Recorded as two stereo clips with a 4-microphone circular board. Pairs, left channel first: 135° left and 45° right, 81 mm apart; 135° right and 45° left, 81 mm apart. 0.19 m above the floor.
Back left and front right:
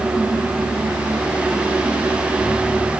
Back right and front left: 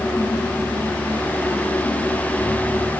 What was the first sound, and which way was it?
Only background noise.